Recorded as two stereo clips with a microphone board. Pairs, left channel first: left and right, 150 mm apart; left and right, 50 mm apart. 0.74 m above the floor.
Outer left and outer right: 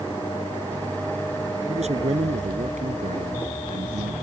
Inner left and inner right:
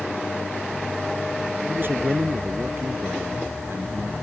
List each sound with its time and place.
1.7 s a man speaking: 45° right (ahead or behind); by 4.1 s 55° right (ahead or behind)